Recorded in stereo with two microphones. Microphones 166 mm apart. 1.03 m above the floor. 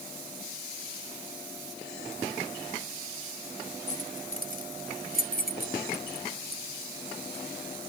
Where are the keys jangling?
50° left (ahead or behind); by 7.4 s 75° left (ahead or behind).